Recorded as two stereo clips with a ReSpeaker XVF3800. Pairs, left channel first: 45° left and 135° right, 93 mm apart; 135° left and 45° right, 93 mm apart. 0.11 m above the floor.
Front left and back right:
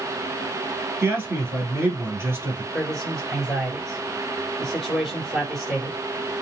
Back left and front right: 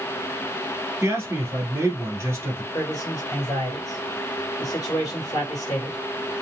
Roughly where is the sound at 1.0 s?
Right.